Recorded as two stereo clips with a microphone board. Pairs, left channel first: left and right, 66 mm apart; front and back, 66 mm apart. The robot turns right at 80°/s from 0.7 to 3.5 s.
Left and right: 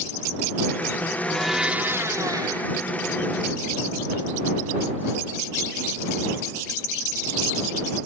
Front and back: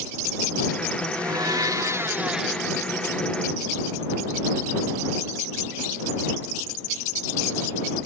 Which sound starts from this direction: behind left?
A blender, at 1.1 s.